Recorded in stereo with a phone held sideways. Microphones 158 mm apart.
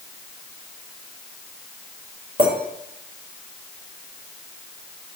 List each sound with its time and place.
2.4 s a clink: 40° right (ahead or behind), 3 m